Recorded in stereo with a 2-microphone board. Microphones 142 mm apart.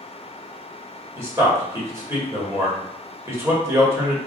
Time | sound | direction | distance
1.2 | a man speaking | 20° right (ahead or behind) | 1.5 m